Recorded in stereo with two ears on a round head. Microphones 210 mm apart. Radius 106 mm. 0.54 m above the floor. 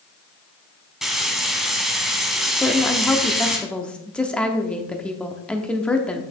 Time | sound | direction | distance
1.0 | frying | centre (ahead or behind) | 1.3 m
2.6 | a woman speaking | 5° left (ahead or behind) | 0.8 m